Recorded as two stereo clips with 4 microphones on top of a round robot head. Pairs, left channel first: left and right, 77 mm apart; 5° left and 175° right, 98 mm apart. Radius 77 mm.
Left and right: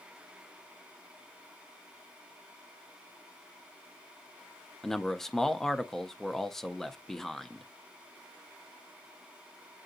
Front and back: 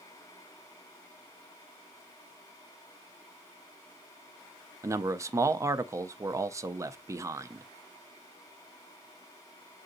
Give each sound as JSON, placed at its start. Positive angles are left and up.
{"t": 4.8, "sound": "a man speaking", "azimuth_deg": 170, "distance_m": 0.5}